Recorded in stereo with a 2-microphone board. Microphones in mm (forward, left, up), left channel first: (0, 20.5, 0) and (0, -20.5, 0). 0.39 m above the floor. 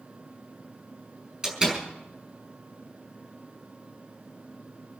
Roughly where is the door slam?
Right.